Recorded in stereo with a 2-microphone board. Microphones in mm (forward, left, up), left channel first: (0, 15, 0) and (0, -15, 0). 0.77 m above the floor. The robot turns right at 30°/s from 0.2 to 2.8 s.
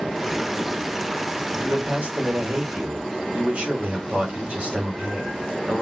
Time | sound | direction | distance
1.5 | a man speaking | 105° right | 3 m